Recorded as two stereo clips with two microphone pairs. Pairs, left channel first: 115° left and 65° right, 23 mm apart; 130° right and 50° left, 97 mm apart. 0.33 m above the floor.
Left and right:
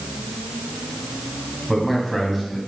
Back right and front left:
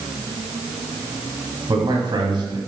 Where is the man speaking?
25° left, 2.0 m.